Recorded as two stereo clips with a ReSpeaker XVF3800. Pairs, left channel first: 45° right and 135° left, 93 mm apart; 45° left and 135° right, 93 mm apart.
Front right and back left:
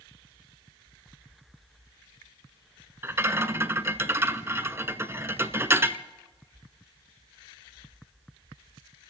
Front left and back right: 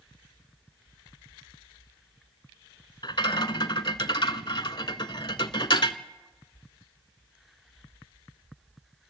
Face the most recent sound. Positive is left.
turn(degrees=75)